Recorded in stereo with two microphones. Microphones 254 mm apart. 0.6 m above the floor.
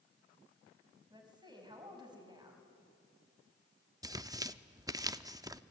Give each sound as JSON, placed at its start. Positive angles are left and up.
{"t": 1.1, "sound": "a woman speaking", "side_deg": -15, "distance_m": 5.0}
{"t": 4.0, "sound": "tearing paper", "side_deg": -15, "distance_m": 0.5}